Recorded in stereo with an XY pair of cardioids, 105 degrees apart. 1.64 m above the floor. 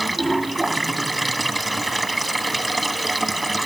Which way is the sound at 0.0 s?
10° right.